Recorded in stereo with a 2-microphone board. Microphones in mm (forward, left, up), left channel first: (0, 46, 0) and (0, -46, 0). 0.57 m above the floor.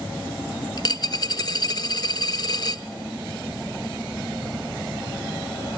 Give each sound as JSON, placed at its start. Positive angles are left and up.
{"t": 0.8, "sound": "a dropped coin", "side_deg": 45, "distance_m": 0.8}